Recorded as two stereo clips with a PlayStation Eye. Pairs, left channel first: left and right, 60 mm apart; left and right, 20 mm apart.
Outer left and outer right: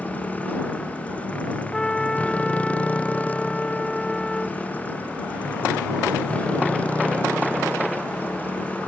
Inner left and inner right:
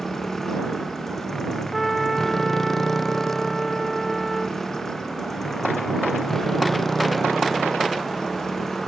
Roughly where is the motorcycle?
Left.